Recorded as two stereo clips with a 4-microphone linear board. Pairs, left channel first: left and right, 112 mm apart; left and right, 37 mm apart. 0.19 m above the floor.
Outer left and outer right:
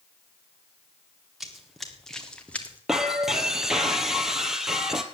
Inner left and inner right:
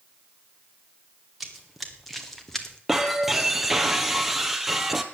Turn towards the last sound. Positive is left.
turn(degrees=-5)  # may be behind; listen again after turning